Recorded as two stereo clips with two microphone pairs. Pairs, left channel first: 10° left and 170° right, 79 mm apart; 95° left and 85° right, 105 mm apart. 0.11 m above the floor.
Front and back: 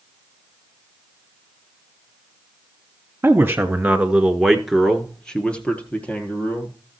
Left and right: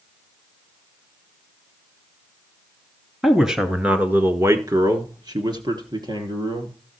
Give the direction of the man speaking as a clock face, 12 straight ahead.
6 o'clock.